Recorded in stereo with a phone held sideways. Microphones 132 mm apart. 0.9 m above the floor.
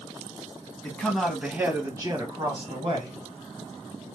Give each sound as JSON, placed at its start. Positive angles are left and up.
{"t": 0.8, "sound": "a man speaking", "side_deg": 10, "distance_m": 1.0}